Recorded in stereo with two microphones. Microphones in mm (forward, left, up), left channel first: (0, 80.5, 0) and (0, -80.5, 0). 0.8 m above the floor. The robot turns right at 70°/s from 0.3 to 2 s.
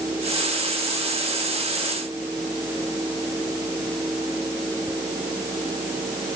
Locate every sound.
Only background noise.